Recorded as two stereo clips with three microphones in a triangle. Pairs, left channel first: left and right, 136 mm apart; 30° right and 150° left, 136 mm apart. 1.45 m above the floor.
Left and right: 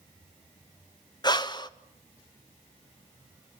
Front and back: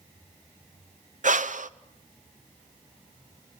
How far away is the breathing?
About 0.8 m.